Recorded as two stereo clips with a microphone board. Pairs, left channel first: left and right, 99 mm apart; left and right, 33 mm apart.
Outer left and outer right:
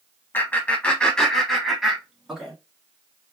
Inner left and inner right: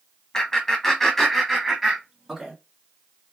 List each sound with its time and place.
0.3 s laughter: 20° left (ahead or behind), 1.3 m; by 2.5 s 10° right (ahead or behind), 1.6 m